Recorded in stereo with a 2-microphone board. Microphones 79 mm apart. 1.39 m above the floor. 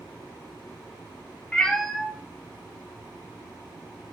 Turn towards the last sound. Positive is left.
turn(degrees=-60)  # may be behind; listen again after turning